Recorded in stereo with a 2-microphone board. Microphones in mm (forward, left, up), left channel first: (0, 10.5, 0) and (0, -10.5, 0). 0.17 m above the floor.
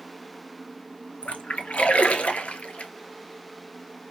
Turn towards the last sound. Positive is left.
turn(degrees=80)